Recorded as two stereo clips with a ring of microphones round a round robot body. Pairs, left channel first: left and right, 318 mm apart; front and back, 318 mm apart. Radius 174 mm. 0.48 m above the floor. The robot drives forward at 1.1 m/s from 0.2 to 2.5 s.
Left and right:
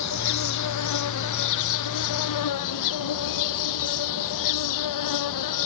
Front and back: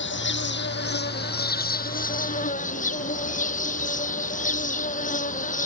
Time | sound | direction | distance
0.0 | an insect | 55° left | ?